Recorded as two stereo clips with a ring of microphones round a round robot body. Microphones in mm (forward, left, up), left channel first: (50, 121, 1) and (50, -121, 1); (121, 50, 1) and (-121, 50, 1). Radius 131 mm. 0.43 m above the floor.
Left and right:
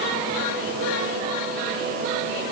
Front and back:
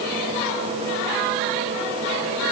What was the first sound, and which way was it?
Only background noise.